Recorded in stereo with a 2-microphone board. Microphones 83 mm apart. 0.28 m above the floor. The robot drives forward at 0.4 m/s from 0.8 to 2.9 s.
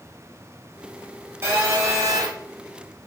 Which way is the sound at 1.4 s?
30° right (ahead or behind).